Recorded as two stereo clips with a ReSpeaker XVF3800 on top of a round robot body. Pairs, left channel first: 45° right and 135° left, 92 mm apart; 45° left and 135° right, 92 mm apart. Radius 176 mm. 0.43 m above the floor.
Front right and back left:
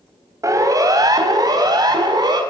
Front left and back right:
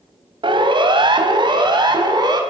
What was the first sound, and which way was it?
A siren, 170° right.